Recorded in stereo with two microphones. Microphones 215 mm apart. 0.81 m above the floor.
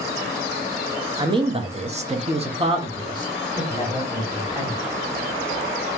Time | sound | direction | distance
1.2 | a man speaking | 20° right (ahead or behind) | 0.9 m